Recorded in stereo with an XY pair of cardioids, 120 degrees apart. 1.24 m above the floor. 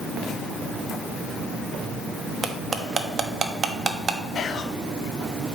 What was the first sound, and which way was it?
Cutlery clinking, 35° right.